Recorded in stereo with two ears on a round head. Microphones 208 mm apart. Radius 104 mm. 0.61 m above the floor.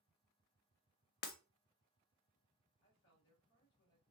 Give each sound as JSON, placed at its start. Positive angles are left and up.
{"t": 1.2, "sound": "breaking glass", "side_deg": 40, "distance_m": 0.5}
{"t": 2.8, "sound": "a woman speaking", "side_deg": 60, "distance_m": 1.8}